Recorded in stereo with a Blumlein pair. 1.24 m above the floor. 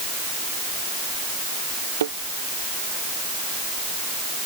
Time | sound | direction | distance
2.0 | a thud | 65° right | ?